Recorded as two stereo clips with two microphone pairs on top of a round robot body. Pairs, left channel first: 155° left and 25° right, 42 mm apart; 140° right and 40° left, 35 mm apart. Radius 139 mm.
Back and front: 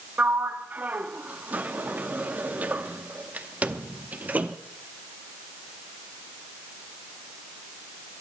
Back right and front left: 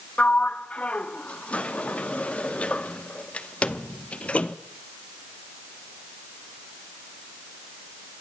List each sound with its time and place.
0.2 s a sliding door: 80° right, 0.8 m